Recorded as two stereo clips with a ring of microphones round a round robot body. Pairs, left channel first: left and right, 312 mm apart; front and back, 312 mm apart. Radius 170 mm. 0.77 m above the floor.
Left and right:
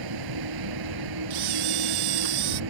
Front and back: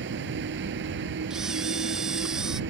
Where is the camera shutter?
90° right.